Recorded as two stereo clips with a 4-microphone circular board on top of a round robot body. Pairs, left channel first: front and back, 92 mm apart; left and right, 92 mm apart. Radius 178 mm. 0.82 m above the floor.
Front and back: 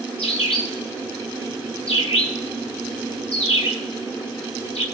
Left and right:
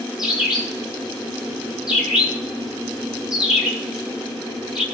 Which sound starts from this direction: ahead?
A bird, at 0.2 s.